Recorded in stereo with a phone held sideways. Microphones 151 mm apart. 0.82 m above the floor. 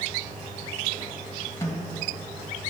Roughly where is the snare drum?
Centre.